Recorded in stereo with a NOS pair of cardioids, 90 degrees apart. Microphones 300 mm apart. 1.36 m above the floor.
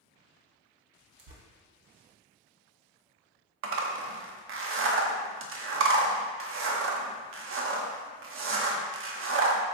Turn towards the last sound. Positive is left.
turn(degrees=-45)